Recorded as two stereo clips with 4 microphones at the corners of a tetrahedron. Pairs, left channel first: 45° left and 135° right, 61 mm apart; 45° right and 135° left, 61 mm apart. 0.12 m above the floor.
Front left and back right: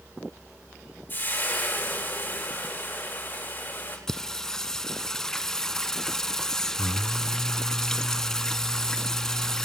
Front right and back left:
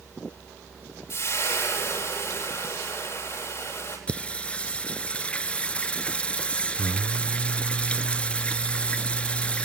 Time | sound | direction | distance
1.1 | frying | 5° right | 8 m
4.1 | singing | 20° right | 0.7 m